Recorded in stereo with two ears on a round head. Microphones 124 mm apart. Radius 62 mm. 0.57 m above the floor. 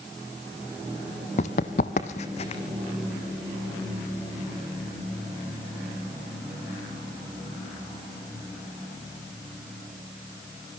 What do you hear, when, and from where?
1.4 s running footsteps: 60° left (ahead or behind), 1.1 m; by 2.6 s 45° left (ahead or behind), 1.9 m